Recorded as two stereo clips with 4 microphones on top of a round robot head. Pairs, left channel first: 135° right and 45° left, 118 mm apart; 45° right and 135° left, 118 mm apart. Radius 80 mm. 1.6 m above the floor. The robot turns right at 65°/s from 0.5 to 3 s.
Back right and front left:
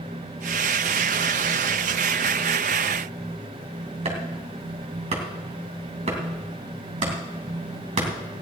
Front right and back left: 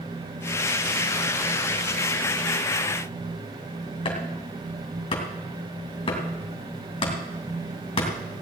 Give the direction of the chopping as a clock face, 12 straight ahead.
12 o'clock.